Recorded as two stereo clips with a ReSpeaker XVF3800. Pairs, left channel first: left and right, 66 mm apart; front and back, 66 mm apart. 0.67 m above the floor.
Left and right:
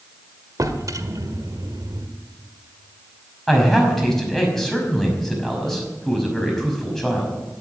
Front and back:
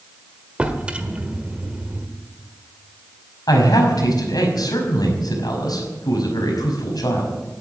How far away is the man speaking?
About 5.5 m.